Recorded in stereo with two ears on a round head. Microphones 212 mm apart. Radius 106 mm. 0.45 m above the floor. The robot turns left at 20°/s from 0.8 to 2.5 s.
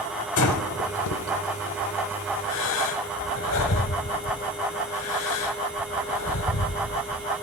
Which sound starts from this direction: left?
Breathing, at 0.4 s.